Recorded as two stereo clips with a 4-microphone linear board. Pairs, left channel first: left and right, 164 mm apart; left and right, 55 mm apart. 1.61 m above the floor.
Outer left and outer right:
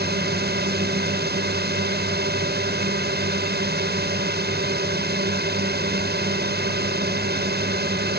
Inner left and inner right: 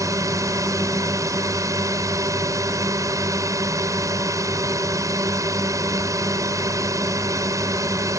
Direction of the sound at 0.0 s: 80° right.